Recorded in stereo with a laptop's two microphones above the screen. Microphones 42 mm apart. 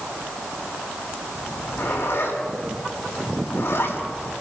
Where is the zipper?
80° left, 6 m.